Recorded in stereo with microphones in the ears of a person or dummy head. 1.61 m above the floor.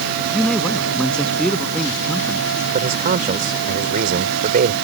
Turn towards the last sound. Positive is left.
turn(degrees=-45)  # may be behind; listen again after turning